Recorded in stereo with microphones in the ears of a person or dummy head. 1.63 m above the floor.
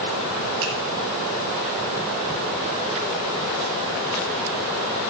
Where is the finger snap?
65° right (ahead or behind), 5.5 m.